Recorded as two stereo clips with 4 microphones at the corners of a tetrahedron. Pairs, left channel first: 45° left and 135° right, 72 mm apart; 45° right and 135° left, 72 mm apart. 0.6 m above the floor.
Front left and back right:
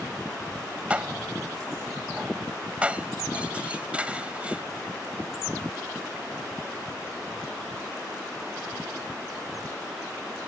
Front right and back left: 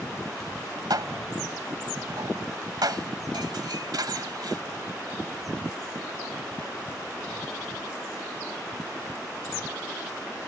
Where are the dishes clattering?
155° left.